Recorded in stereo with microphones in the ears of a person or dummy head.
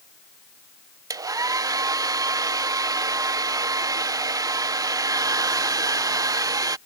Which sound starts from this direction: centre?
A hair dryer, at 1.1 s.